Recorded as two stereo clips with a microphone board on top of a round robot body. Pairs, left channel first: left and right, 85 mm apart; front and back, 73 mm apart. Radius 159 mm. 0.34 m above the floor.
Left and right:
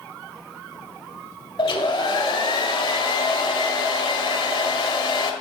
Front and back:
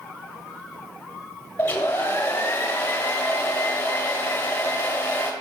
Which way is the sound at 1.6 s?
65° left.